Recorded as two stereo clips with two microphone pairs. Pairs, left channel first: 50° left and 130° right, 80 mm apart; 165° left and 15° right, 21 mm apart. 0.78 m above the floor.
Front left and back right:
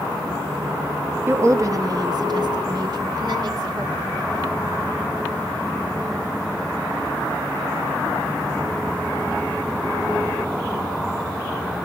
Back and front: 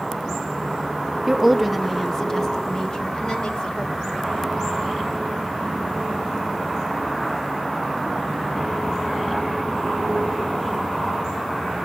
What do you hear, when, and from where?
1.3 s a woman speaking: 90° right, 0.6 m; by 4.6 s 165° right, 2.0 m